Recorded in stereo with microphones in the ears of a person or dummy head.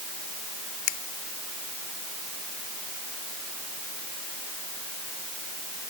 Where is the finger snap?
70° left (ahead or behind).